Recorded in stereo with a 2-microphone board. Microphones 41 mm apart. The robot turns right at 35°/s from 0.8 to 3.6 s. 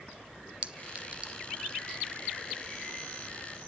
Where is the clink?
35° right (ahead or behind), 0.8 m; by 1.3 s 25° right (ahead or behind), 0.8 m.